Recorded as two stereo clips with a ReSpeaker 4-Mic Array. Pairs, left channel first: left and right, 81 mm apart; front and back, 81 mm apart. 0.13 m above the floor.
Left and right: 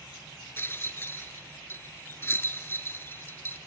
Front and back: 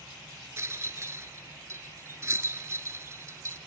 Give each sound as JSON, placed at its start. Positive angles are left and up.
{"t": 0.6, "sound": "a rattle", "azimuth_deg": 140, "distance_m": 0.9}